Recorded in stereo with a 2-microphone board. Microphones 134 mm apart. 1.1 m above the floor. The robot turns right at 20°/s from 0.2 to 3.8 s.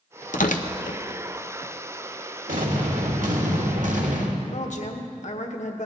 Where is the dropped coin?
I don't hear a dropped coin.